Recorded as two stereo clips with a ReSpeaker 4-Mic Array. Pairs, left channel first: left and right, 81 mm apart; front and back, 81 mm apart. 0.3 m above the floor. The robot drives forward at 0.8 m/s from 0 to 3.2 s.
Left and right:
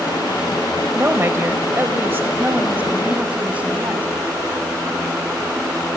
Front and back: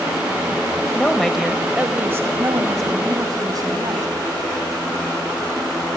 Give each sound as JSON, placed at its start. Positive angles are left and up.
{"t": 0.9, "sound": "a woman speaking", "azimuth_deg": -60, "distance_m": 1.2}